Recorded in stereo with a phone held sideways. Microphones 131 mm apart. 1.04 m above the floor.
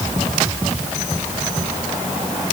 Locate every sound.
Only background noise.